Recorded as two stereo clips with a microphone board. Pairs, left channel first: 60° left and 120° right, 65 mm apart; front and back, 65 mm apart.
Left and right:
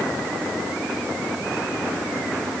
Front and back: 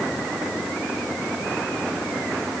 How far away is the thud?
No thud in this recording.